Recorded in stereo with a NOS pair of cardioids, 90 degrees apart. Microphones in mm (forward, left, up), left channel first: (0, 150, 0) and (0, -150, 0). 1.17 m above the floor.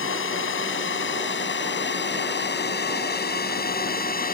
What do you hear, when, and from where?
0.0 s a drone: 45° left; by 4.3 s 30° left